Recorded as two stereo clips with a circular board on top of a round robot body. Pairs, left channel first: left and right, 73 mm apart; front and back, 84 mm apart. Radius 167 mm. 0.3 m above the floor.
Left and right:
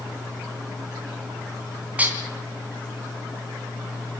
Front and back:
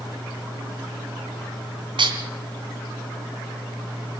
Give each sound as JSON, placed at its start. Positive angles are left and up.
{"t": 2.0, "sound": "dishes clattering", "azimuth_deg": -160, "distance_m": 3.0}